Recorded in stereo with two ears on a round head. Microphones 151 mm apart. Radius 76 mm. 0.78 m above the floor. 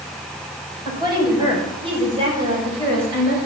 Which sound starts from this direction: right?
A woman speaking, at 0.8 s.